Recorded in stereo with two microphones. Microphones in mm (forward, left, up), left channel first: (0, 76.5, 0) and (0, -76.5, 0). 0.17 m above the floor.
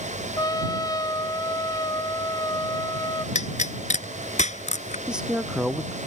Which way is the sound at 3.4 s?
50° left (ahead or behind).